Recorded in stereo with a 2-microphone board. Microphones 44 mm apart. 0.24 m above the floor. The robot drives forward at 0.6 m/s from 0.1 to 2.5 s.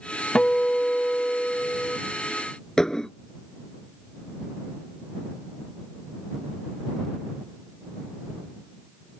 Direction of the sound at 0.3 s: 20° left (ahead or behind).